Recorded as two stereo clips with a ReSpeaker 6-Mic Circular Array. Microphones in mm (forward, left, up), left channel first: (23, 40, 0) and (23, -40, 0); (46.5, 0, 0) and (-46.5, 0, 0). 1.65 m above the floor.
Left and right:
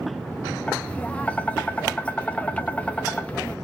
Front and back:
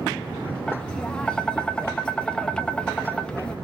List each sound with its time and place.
0.7 s tapping: 60° left, 0.5 m